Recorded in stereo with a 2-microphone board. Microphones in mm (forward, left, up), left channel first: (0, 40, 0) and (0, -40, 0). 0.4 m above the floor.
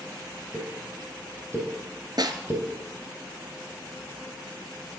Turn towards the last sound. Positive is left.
turn(degrees=-60)  # may be behind; listen again after turning